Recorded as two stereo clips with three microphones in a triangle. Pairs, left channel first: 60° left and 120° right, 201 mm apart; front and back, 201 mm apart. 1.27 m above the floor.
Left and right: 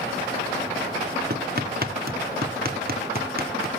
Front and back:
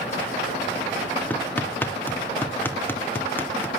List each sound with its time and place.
1.3 s hammering: 80° right, 2 m